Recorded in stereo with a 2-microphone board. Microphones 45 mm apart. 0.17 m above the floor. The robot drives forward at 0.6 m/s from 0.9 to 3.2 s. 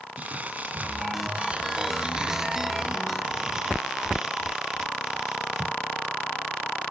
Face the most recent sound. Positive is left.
turn(degrees=-10)  # may be behind; listen again after turning